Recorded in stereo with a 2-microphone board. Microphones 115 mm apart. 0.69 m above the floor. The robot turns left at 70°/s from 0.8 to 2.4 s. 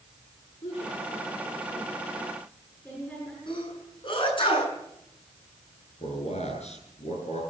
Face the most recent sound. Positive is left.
turn(degrees=75)  # may be behind; listen again after turning